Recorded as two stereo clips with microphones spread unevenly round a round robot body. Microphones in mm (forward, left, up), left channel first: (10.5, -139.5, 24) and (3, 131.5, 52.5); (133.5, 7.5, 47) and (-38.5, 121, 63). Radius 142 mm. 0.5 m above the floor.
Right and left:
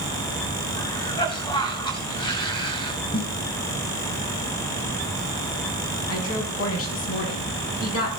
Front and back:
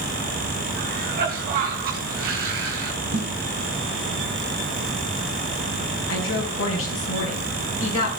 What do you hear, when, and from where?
0.8 s a cough: 160° right, 3.5 m
3.1 s a snare drum: 160° right, 5 m
6.1 s a woman speaking: 55° right, 6 m